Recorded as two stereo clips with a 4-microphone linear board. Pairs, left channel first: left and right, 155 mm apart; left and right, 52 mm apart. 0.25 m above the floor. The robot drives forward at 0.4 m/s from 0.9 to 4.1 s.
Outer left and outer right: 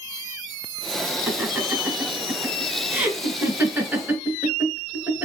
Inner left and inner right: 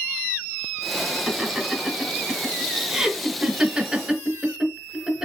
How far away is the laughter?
About 2 m.